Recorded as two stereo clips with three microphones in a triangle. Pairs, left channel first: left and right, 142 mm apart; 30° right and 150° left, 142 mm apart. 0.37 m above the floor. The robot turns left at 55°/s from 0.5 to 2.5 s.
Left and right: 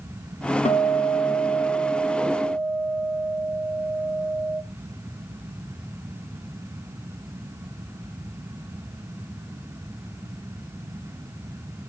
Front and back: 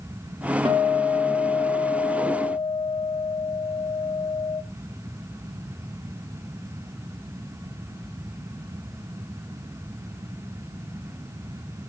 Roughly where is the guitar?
Left.